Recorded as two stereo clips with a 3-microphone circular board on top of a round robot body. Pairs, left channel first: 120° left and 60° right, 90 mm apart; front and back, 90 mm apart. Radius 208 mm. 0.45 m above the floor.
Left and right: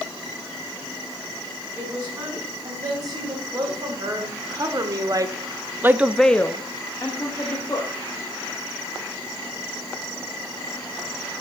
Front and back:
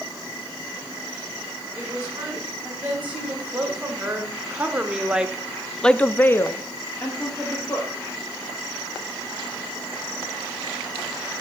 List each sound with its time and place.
1.8 s a woman speaking: 110° right, 4.5 m; by 7.9 s 65° left, 2 m